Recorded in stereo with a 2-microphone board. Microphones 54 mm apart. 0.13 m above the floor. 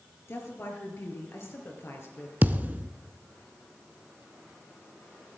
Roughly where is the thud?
Right.